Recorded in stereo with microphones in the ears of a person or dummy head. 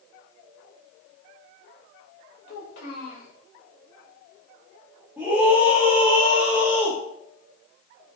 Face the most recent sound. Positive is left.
turn(degrees=-5)  # may be behind; listen again after turning